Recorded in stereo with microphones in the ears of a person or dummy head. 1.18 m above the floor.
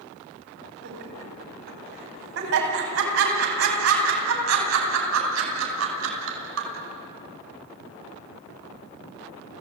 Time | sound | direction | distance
0.8 | laughter | 65° right (ahead or behind) | 8 m